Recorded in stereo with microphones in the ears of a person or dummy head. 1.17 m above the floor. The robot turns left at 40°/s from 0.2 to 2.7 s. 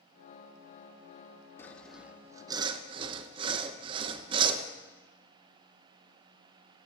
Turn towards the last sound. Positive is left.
turn(degrees=-30)